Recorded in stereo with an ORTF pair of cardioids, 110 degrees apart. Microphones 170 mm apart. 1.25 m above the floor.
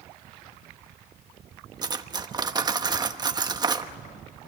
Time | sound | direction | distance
1.8 | cutlery clinking | 25° right | 1.0 m